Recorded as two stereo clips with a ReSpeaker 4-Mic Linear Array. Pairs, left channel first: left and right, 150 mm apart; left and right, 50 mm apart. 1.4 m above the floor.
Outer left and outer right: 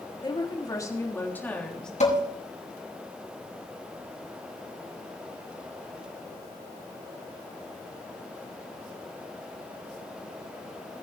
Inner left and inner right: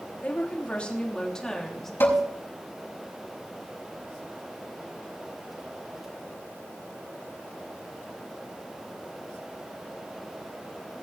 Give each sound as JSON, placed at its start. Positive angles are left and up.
{"t": 0.2, "sound": "a woman speaking", "side_deg": 30, "distance_m": 3.0}
{"t": 2.0, "sound": "dishes clattering", "side_deg": 50, "distance_m": 5.5}